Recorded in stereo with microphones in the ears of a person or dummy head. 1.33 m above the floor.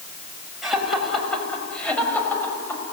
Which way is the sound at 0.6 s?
5° left (ahead or behind).